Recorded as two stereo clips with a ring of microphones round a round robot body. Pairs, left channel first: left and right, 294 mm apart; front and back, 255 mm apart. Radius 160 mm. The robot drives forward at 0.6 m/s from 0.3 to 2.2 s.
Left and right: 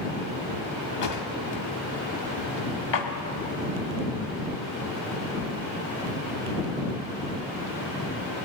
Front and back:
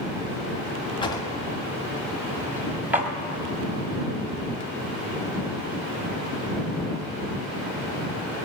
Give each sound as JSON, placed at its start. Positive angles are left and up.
{"t": 1.0, "sound": "a drawer", "azimuth_deg": 70, "distance_m": 1.7}